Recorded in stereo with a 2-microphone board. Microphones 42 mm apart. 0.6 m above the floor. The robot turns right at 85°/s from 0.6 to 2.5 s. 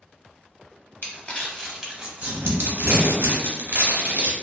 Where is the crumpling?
55° left (ahead or behind), 0.7 m; by 4.3 s 55° right (ahead or behind), 0.7 m.